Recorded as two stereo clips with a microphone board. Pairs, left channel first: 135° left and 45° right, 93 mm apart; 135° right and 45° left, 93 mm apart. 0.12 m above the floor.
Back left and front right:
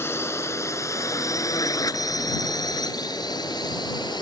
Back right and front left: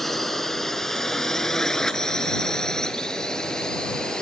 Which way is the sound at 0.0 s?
145° left.